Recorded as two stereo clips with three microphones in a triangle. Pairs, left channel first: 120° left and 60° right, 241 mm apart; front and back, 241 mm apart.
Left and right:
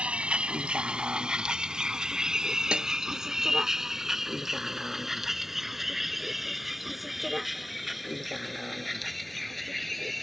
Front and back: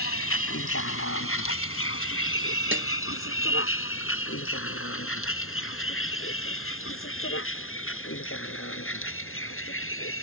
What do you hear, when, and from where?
0.0 s a vehicle: 25° left; by 10.2 s 30° left
2.7 s a snare drum: 145° right